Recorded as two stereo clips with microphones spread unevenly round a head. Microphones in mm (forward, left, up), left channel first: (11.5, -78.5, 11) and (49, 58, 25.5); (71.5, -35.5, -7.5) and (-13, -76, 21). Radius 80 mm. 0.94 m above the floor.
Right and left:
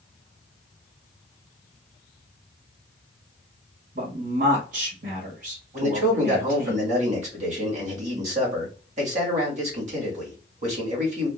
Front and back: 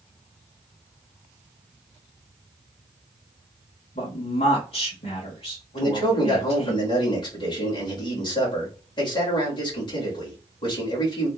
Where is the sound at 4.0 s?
45° left, 1.6 m.